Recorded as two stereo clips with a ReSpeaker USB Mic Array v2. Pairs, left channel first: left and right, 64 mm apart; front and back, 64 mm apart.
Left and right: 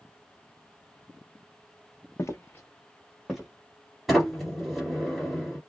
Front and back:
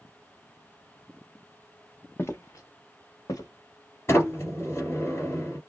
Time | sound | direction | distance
2.2 | footsteps | 50° left | 0.7 m
4.1 | a sliding door | straight ahead | 1.6 m